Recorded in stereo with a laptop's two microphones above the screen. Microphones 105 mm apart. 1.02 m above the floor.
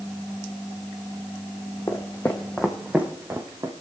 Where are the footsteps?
30° left (ahead or behind), 2 m; by 3.7 s 35° right (ahead or behind), 2.5 m.